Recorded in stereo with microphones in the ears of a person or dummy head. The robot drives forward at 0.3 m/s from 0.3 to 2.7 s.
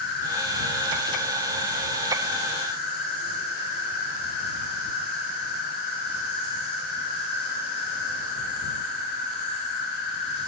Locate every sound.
0.0 s an insect: 65° left (ahead or behind), 4 m; by 10.5 s 55° left (ahead or behind), 4 m